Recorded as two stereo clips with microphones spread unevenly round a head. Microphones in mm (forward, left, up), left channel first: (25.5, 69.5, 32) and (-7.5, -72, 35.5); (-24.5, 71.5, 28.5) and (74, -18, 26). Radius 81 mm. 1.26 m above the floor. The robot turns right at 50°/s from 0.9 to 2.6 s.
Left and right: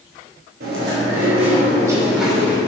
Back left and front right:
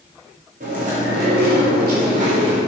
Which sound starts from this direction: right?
Chewing, at 0.6 s.